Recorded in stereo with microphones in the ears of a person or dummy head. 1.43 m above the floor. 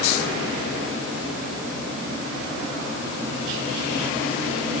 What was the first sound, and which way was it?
Only background noise.